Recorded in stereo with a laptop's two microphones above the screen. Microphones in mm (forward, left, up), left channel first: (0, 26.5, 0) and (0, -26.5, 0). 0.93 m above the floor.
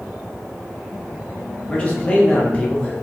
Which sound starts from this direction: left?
A man speaking, at 1.7 s.